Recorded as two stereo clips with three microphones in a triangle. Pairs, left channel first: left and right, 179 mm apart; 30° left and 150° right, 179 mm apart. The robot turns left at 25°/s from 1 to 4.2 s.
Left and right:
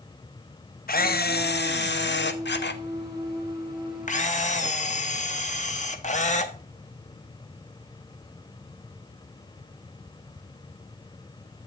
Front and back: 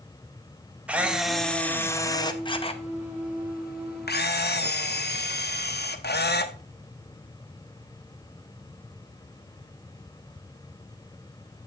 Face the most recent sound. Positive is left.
turn(degrees=45)